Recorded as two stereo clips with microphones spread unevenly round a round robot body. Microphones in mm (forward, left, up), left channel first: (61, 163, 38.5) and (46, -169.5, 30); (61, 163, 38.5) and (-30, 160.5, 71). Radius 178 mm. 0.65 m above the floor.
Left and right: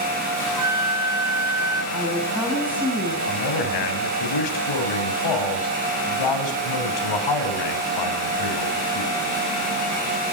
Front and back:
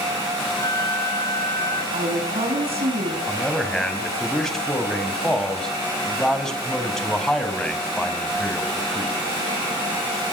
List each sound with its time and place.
0.6 s a flute: 60° right, 1.6 m
1.9 s a woman speaking: straight behind, 6 m
3.3 s a man speaking: 85° left, 4.5 m